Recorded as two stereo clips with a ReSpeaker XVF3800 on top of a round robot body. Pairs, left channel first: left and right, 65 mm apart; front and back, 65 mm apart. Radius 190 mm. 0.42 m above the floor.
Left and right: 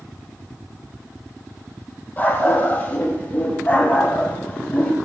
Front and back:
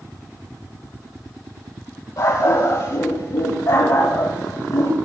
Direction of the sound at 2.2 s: 30° left.